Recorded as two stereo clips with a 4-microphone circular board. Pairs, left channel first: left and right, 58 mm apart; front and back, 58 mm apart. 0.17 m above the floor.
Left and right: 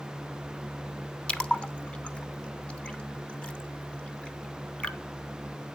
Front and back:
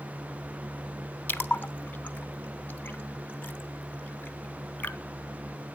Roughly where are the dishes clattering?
I don't hear dishes clattering.